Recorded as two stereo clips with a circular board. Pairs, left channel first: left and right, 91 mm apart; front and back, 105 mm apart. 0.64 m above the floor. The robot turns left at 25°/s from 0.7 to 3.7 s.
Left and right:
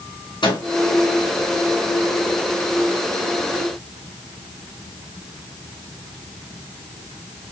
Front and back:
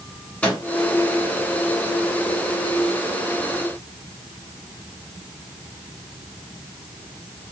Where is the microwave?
80° left, 3 m.